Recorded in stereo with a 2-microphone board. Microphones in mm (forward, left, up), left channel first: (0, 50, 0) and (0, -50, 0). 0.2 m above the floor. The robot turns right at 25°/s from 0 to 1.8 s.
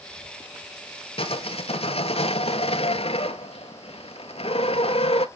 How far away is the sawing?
About 0.8 m.